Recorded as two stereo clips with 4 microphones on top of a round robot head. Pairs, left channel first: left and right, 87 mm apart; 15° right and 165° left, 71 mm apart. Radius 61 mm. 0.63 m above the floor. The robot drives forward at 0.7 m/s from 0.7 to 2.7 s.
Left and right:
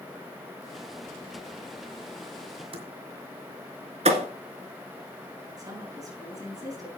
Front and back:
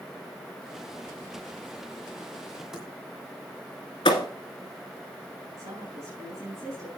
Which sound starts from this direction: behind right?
A woman speaking, at 5.6 s.